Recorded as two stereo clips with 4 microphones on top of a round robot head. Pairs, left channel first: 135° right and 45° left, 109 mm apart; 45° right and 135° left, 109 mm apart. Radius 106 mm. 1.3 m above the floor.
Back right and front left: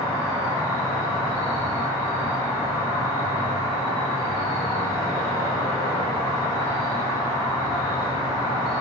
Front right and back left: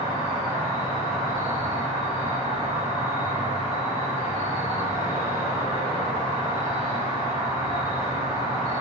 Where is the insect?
80° right, 1.9 m.